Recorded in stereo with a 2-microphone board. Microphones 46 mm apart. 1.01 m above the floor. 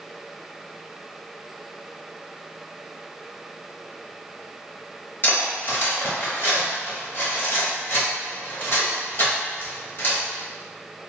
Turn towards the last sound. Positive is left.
turn(degrees=40)  # may be behind; listen again after turning